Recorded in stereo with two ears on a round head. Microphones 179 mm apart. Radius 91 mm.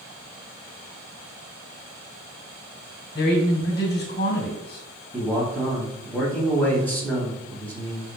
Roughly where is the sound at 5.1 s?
Centre.